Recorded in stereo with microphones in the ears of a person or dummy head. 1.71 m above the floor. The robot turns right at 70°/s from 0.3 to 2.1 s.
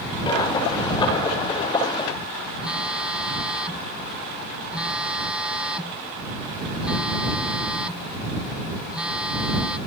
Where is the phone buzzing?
5° right (ahead or behind).